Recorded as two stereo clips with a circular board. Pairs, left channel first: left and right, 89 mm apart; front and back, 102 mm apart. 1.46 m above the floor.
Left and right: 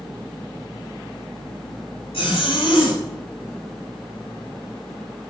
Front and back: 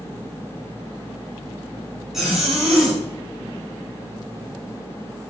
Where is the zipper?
95° left, 5.5 m.